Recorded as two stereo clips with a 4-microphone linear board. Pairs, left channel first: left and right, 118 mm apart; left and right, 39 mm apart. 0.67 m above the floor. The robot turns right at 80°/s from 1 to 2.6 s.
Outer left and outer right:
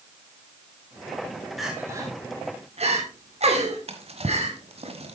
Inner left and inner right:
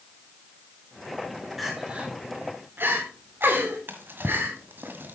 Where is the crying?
Centre (ahead or behind), 2.5 m; by 4.9 s 65° right (ahead or behind), 2.5 m.